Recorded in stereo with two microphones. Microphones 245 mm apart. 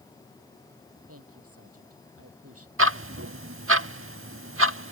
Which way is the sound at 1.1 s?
80° right.